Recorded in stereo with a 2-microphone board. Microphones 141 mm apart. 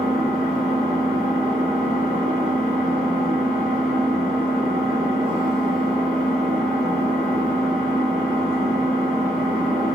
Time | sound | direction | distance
0.0 | an engine running | 40° right (ahead or behind) | 1.3 m